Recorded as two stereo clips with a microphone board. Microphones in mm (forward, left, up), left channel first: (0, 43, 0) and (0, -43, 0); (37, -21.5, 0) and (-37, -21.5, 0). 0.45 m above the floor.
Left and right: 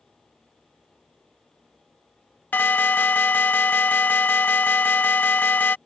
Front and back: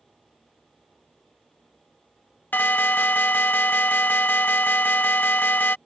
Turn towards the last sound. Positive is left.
turn(degrees=40)